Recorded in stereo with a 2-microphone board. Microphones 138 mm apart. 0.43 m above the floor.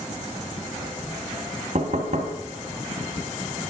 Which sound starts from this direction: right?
Knocking, at 1.8 s.